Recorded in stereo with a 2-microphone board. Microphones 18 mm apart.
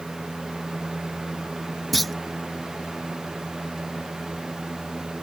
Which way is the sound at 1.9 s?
5° left (ahead or behind).